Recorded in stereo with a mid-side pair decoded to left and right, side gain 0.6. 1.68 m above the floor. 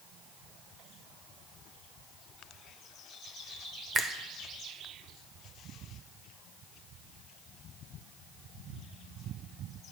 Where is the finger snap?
30° right, 0.6 m.